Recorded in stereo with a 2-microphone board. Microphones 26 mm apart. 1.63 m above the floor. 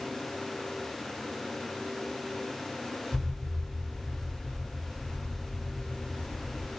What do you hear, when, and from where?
3.1 s an explosion: 70° right (ahead or behind), 3 m